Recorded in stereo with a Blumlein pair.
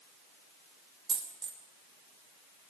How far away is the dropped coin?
About 2.5 m.